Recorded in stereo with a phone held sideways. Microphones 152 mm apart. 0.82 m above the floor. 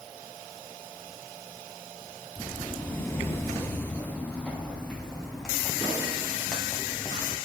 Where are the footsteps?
10° left (ahead or behind), 1.4 m; by 7.4 s centre (ahead or behind), 5 m.